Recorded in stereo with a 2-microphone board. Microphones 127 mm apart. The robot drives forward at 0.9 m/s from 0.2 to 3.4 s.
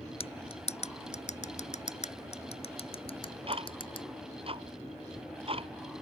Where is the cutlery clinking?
50° left (ahead or behind); by 4.0 s 45° left (ahead or behind).